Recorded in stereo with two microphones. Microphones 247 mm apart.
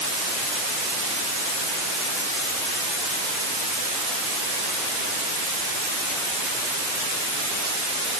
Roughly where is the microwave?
No microwave in this recording.